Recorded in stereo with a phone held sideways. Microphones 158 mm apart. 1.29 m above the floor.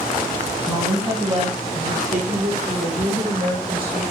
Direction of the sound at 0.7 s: 20° right (ahead or behind).